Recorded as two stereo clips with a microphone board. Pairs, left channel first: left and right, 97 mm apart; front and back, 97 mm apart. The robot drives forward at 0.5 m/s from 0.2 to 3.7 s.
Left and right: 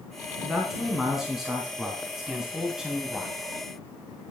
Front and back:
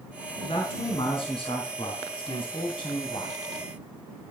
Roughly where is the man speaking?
Ahead.